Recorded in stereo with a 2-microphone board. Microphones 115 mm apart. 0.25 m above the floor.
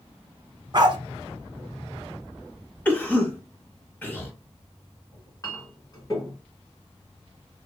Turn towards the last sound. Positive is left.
turn(degrees=30)  # may be behind; listen again after turning